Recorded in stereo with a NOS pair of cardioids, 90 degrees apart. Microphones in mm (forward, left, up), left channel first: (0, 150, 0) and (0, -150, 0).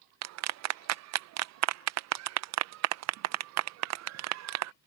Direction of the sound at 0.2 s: 65° right.